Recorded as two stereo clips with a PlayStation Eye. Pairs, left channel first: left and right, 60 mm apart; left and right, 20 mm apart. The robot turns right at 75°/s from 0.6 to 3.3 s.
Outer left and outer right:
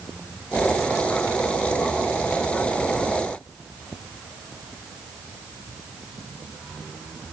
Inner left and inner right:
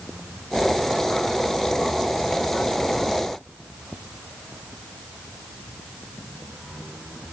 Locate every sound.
Only background noise.